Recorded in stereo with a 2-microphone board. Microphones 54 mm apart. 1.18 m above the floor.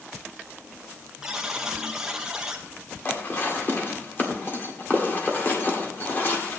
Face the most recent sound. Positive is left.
turn(degrees=40)  # may be behind; listen again after turning